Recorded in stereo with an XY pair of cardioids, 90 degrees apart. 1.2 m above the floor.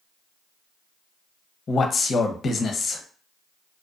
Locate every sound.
1.7 s a man speaking: 55° left, 0.6 m